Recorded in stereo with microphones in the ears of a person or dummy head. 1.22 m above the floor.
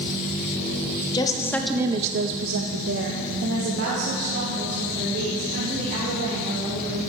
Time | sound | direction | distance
1.1 | a woman speaking | 25° left (ahead or behind) | 1.3 m